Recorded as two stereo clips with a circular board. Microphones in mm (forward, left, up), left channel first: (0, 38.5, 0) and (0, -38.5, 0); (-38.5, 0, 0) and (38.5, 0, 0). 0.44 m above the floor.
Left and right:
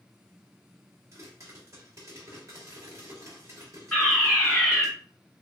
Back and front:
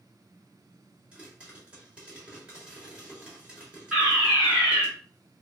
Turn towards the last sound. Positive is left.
turn(degrees=60)